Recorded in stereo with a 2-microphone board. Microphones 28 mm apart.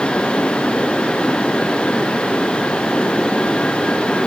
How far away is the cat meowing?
I don't hear a cat meowing.